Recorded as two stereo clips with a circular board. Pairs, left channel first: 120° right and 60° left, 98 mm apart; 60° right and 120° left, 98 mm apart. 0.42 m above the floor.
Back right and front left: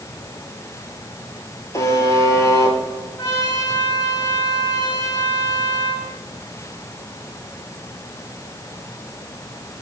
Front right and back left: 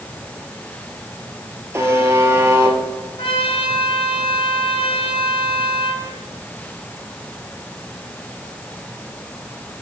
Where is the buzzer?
175° right, 2.5 m.